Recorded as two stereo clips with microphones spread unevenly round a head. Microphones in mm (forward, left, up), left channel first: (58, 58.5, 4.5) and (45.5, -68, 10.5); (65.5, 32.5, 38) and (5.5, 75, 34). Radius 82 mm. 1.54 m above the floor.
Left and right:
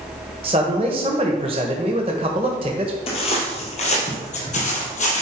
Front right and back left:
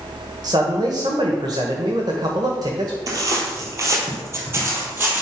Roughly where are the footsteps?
Behind left.